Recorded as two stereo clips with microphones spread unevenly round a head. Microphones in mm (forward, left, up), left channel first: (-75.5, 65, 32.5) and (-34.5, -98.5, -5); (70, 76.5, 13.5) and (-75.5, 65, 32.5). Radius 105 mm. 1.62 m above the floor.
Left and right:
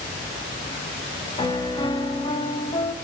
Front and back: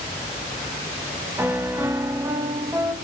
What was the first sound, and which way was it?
A piano, 130° left.